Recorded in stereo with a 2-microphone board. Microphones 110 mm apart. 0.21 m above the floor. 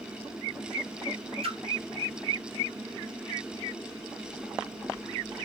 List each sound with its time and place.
1.4 s a splash: 60° right (ahead or behind), 2.5 m